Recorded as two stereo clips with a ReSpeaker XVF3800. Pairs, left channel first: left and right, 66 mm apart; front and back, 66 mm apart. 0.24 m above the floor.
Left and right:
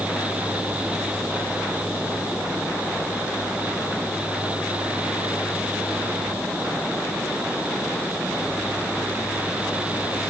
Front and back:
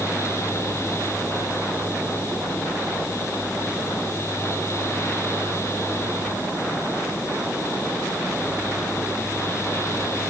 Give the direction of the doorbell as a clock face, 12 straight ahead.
I don't hear a doorbell.